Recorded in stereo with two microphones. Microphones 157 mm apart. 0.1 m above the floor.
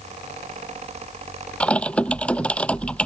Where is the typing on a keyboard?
5° left (ahead or behind).